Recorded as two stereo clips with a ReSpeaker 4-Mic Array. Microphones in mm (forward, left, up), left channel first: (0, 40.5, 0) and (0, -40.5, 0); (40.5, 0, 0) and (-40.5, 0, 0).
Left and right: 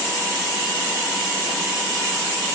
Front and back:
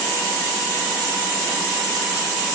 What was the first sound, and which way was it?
Only background noise.